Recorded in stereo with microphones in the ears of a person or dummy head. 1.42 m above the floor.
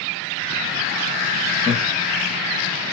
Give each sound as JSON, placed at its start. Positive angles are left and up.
{"t": 1.7, "sound": "laughter", "side_deg": 0, "distance_m": 1.0}